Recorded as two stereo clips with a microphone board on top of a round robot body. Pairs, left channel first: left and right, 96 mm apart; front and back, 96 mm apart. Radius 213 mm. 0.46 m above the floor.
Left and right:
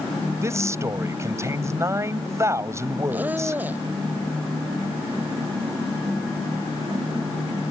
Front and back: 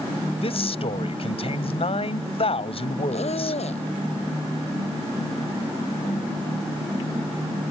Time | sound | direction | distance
0.4 | a man speaking | 30° right | ?
3.1 | a squeak | 15° right | ?